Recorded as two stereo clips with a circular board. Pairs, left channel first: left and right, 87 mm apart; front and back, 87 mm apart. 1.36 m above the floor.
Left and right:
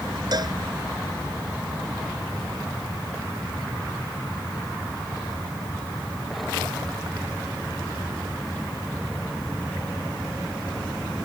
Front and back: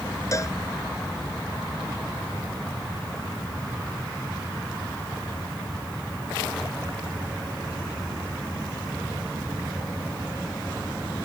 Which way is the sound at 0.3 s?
50° right.